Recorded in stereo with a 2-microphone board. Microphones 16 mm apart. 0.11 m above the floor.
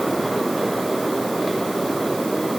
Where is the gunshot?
No gunshot in this recording.